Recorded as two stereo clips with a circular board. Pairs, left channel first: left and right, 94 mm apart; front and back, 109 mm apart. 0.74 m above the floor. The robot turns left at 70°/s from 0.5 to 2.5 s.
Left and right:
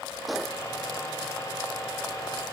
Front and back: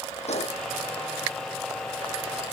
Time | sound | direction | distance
0.3 | a gunshot | straight ahead | ?